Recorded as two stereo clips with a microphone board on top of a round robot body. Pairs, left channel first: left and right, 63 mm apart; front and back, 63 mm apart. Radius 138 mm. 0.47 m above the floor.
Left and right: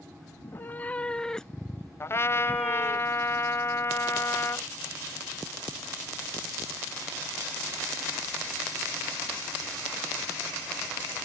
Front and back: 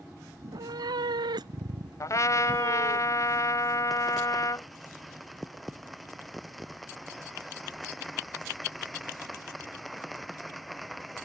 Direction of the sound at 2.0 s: 40° left.